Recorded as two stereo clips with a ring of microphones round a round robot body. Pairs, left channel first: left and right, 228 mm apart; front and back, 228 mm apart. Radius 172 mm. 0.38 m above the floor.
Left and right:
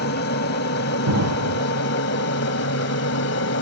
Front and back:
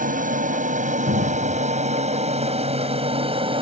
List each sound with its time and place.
0.0 s an aircraft: 130° left; by 3.6 s 115° left
1.1 s an explosion: 115° right